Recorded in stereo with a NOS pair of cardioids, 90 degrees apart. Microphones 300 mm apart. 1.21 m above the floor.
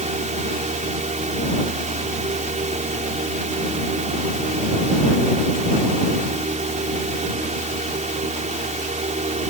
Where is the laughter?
No laughter in this recording.